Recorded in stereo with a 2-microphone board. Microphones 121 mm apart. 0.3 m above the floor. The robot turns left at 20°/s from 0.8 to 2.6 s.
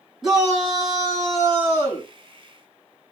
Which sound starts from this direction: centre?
A shout, at 0.2 s.